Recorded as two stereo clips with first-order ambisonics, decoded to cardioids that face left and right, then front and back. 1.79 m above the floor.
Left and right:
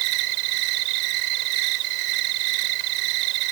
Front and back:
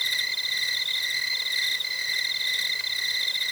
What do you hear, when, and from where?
0.0 s an insect: 90° right